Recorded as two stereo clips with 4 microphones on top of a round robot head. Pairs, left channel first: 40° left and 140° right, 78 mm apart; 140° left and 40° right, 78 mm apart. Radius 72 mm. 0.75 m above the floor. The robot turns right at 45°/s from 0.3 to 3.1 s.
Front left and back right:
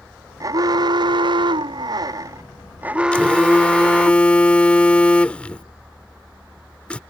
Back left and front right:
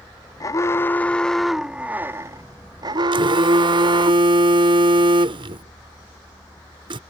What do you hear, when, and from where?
0.4 s an alarm: straight behind; by 4.1 s 60° right
3.1 s a phone buzzing: 35° right